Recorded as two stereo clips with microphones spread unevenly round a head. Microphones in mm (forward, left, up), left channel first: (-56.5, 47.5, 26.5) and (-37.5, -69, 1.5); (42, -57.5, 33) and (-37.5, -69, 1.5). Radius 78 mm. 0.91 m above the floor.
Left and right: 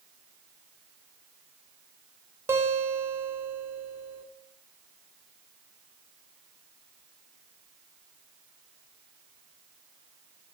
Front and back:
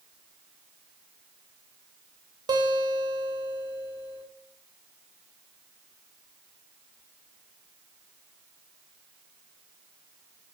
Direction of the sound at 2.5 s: 150° right.